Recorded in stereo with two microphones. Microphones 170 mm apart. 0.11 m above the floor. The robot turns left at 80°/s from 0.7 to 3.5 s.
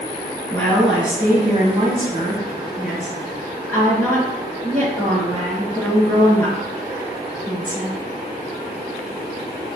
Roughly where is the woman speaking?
Ahead.